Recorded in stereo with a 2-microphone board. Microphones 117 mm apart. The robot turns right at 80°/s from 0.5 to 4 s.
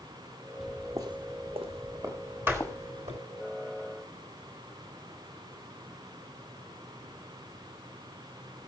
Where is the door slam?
15° right (ahead or behind), 3.5 m; by 3.2 s 75° right (ahead or behind), 3.5 m.